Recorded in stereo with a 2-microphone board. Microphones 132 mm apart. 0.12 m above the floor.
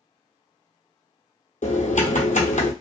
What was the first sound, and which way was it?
Typing on a keyboard, 75° left (ahead or behind).